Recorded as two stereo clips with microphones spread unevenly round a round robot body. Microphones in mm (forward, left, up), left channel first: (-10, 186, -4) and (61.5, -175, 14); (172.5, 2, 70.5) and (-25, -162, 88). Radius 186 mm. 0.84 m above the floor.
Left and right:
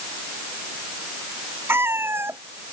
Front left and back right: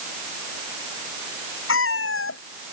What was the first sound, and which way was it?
A cat meowing, 5° left.